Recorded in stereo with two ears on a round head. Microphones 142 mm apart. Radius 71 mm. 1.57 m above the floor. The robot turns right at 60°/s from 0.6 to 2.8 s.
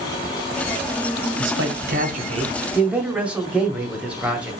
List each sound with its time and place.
1.4 s a man speaking: 90° right, 1.3 m; by 4.5 s 10° right, 1.3 m